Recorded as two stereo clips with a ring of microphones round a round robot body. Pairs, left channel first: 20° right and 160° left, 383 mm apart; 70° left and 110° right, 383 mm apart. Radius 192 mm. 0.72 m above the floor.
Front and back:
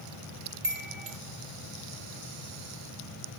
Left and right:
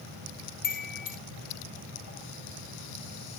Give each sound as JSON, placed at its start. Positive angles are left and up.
{"t": 0.6, "sound": "a chime", "azimuth_deg": 90, "distance_m": 1.4}